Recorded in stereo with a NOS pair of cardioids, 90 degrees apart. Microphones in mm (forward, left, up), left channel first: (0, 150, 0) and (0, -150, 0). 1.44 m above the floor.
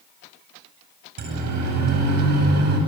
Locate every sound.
1.2 s a siren: 65° right, 9 m; by 2.8 s 60° right, 9.5 m